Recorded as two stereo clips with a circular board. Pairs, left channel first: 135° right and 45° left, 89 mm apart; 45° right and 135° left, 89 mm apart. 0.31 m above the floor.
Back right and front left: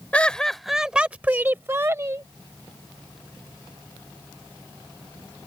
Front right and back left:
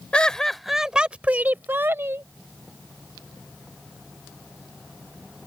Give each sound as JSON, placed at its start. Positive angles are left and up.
{"t": 0.1, "sound": "laughter", "azimuth_deg": -100}